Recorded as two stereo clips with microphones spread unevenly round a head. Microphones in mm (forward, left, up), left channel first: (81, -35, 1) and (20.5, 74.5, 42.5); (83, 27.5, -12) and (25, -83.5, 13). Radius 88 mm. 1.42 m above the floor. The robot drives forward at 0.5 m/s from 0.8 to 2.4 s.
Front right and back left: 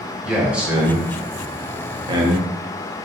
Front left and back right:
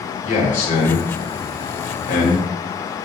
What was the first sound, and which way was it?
A man speaking, 40° left.